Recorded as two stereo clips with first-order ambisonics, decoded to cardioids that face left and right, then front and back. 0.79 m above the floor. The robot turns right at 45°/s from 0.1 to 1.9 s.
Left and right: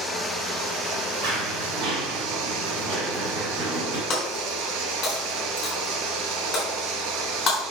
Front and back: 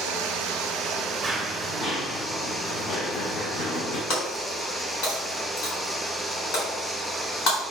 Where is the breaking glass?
35° left, 4 m.